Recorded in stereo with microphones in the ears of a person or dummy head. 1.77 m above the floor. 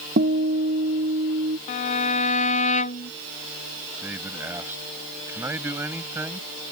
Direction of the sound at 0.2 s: 45° right (ahead or behind).